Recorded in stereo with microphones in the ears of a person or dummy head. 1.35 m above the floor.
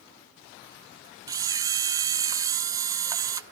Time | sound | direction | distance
1.3 | a camera shutter | 20° right (ahead or behind) | 0.6 m